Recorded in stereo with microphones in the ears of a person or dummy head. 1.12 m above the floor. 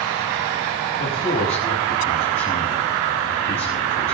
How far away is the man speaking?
About 8.5 m.